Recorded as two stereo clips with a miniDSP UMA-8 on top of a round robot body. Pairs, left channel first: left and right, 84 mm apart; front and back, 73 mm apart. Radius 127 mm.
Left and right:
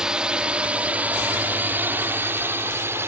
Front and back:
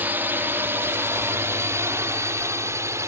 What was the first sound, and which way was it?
A drone, 160° right.